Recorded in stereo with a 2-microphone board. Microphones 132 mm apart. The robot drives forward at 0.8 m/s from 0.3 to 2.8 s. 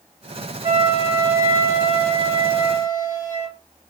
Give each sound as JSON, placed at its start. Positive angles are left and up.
{"t": 0.6, "sound": "a flute", "side_deg": -30, "distance_m": 1.3}